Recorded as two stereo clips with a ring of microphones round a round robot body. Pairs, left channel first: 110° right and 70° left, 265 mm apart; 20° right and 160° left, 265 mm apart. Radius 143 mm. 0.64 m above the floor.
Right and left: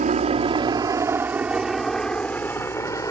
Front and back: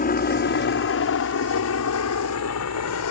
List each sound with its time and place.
0.0 s a helicopter: 15° left; by 3.1 s 35° right